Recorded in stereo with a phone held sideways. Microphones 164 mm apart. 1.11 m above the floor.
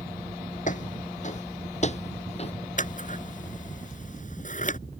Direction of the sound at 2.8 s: 50° left (ahead or behind).